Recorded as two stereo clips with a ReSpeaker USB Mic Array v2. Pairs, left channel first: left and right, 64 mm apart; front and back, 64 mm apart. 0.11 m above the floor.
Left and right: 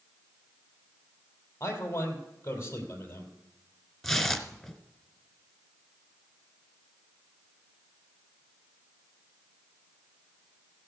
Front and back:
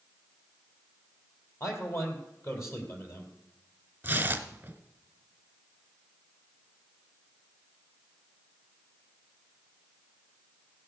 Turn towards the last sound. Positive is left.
turn(degrees=175)